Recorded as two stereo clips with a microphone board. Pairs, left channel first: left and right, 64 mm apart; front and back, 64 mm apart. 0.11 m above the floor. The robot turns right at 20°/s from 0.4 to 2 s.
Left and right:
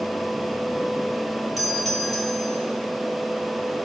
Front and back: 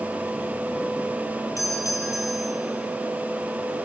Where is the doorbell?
5° right, 3 m; by 2.6 s 5° left, 3 m.